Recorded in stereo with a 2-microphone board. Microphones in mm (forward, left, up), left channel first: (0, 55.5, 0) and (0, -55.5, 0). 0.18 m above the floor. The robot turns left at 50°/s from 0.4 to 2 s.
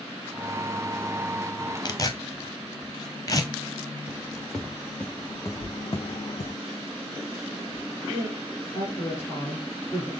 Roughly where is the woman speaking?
Left.